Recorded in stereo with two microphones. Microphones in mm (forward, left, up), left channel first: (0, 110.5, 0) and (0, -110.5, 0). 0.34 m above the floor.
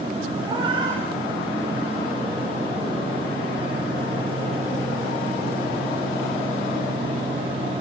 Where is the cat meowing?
20° right (ahead or behind), 10 m.